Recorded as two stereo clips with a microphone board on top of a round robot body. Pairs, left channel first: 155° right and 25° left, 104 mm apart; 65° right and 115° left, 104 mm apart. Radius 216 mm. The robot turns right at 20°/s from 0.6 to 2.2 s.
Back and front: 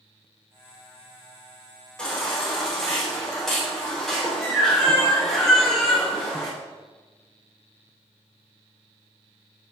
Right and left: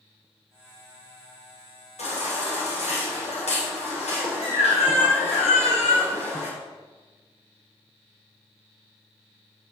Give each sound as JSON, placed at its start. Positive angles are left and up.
{"t": 2.0, "sound": "a baby crying", "azimuth_deg": -75, "distance_m": 4.0}